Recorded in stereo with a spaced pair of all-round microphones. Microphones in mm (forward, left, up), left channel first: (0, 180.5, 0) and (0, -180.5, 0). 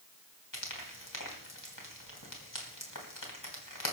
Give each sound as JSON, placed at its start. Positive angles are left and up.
{"t": 0.5, "sound": "frying", "side_deg": 65, "distance_m": 3.5}